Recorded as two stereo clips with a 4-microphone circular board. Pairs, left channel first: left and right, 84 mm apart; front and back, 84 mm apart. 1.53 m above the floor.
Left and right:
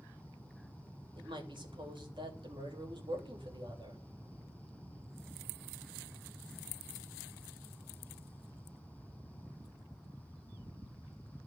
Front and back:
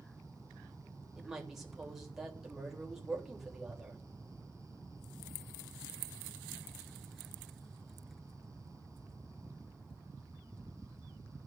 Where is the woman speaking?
95° right, 3 m.